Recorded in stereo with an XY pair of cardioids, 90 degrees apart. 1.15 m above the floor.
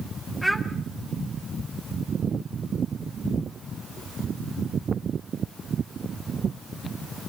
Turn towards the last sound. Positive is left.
turn(degrees=10)